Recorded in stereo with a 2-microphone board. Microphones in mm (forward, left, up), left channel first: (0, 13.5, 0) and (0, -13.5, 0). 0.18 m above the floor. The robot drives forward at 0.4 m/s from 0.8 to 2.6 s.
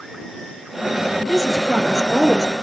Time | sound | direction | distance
1.3 | a woman speaking | 20° right (ahead or behind) | 3.5 m